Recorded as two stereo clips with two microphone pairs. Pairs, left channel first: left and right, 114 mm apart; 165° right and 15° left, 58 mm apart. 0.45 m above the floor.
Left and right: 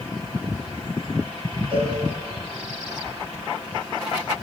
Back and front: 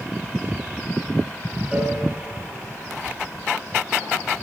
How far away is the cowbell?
About 7 m.